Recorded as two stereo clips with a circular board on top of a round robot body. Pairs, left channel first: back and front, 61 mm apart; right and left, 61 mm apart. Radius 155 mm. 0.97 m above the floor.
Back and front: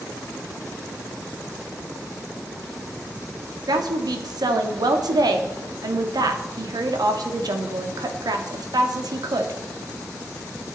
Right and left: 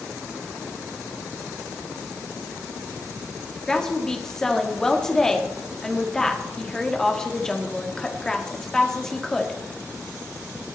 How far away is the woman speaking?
About 2 m.